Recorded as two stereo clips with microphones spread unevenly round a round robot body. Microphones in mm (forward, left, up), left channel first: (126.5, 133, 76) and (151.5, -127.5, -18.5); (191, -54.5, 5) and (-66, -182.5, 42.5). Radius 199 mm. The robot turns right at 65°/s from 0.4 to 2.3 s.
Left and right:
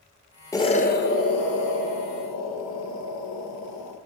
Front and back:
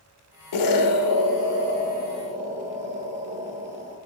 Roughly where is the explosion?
Ahead.